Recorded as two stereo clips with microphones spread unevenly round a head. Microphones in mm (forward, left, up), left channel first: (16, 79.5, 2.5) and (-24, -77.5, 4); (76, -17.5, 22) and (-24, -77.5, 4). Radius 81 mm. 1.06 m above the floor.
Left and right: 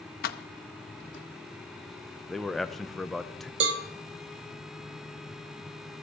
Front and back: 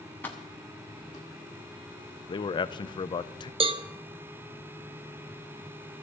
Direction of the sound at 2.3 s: 15° right.